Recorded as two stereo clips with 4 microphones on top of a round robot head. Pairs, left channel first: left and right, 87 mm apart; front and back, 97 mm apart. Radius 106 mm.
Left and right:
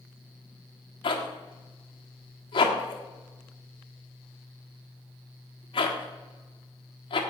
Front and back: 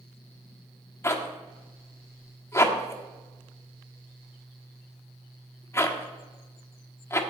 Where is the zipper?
65° left, 1.4 m.